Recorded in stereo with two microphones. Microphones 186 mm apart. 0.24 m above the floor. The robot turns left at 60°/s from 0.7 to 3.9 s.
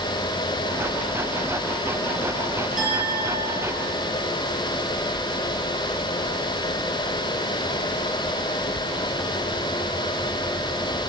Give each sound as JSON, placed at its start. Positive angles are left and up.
{"t": 2.8, "sound": "a clink", "azimuth_deg": 80, "distance_m": 5.0}